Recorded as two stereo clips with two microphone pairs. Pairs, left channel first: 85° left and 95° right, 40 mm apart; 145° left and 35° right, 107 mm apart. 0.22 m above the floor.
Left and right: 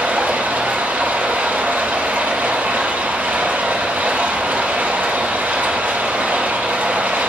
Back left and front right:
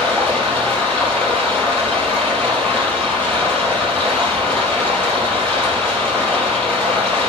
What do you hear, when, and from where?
0.0 s running water: 135° right, 4.5 m